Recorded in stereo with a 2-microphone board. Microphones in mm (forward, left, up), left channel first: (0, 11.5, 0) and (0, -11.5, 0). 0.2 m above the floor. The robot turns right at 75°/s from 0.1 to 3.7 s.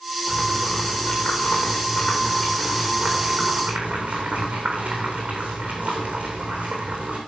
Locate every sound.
0.3 s boiling: 10° right, 3.5 m; by 7.2 s 115° right, 3.5 m